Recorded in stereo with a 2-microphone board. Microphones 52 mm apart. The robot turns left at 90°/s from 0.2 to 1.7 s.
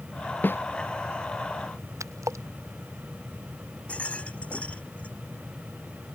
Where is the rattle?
25° left (ahead or behind).